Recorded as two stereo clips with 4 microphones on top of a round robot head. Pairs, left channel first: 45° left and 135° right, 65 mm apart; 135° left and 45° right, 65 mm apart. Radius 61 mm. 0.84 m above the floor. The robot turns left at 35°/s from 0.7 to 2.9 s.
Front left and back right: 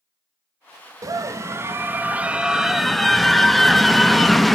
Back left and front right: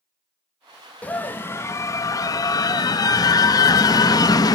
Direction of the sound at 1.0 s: 160° right.